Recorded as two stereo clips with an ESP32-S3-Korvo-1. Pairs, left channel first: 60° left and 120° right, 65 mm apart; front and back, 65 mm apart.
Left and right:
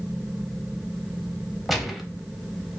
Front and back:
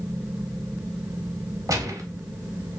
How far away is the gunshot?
About 0.6 m.